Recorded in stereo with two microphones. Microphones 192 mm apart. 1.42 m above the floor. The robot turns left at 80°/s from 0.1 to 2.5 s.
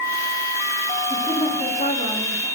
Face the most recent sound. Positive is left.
turn(degrees=65)